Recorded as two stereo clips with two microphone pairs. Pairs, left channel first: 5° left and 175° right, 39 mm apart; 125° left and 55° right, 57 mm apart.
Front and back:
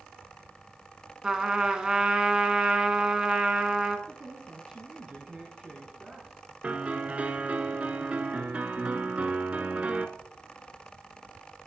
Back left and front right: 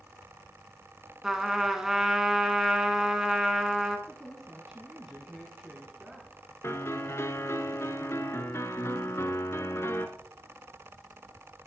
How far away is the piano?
About 0.9 m.